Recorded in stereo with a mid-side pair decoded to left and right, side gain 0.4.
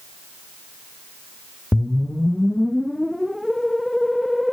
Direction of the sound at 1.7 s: 10° left.